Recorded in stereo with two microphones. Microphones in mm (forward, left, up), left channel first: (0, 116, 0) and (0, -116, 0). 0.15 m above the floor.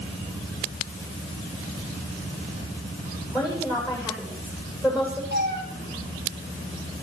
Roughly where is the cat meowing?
Right.